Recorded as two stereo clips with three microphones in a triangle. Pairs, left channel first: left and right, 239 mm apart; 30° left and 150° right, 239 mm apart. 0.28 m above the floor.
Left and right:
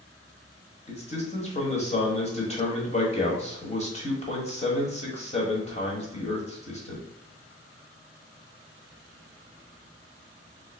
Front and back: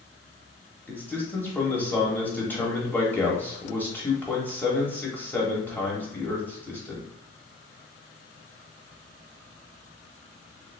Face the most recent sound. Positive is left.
turn(degrees=105)